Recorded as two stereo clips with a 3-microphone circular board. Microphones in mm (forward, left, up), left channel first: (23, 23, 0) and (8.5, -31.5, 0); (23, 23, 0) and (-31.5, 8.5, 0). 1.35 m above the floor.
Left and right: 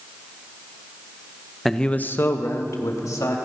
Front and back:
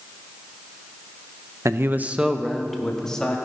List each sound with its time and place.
1.6 s a man speaking: 165° left, 0.8 m; by 3.4 s 90° left, 2 m